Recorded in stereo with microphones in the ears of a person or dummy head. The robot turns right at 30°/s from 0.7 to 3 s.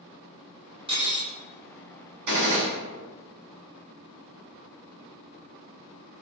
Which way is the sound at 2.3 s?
60° right (ahead or behind).